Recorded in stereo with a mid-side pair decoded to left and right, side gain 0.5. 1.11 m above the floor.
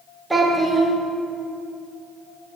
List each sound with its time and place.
0.3 s a child speaking: 15° right, 1.2 m